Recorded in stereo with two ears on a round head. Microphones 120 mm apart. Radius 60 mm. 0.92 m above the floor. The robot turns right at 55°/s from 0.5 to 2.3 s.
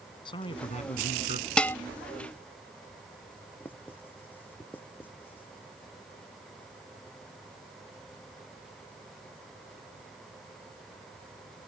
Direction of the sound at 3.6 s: 15° left (ahead or behind).